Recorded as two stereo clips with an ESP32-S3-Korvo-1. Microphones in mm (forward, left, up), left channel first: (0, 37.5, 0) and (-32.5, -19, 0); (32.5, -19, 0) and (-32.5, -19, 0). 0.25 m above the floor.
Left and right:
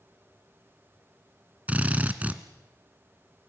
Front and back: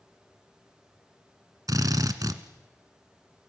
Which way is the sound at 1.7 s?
175° left.